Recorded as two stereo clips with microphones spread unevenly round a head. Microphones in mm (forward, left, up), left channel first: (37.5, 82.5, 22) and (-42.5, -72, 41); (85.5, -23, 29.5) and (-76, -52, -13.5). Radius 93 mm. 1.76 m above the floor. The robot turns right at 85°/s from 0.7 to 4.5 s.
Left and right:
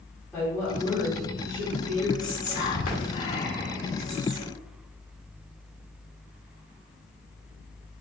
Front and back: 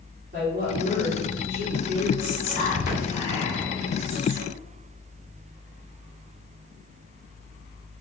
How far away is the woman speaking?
About 1.5 m.